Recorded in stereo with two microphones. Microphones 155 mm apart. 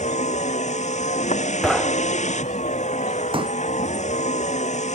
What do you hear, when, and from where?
0.0 s a vehicle: 50° left (ahead or behind)
1.6 s knocking: centre (ahead or behind)
3.3 s a pop: 35° right (ahead or behind)